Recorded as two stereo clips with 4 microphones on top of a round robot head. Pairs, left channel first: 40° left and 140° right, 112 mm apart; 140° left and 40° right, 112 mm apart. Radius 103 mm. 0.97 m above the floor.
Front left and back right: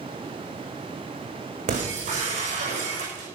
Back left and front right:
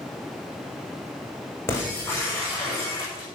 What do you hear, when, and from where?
1.7 s breaking glass: 150° right, 6.5 m